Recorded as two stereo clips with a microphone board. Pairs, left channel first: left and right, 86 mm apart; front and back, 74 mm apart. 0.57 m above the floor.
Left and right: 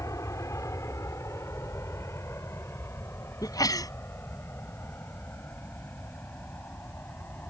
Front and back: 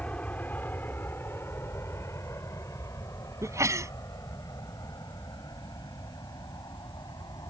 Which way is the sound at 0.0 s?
65° left.